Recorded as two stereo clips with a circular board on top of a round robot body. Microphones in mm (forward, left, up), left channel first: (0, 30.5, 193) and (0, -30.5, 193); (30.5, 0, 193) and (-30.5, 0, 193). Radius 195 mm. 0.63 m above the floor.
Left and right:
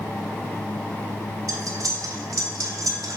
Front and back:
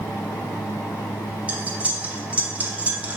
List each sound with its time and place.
1.5 s cutlery clinking: 115° right, 1.2 m